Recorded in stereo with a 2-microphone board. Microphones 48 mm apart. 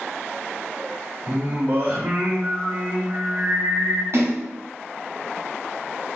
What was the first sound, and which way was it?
Singing, 50° right (ahead or behind).